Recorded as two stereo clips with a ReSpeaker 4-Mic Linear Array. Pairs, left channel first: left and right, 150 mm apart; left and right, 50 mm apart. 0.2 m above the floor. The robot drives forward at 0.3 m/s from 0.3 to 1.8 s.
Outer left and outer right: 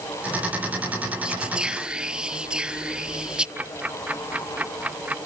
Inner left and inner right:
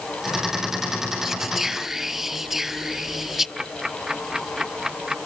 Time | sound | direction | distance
1.2 | whispering | 5° right (ahead or behind) | ?
3.6 | ticking | 10° right (ahead or behind) | ?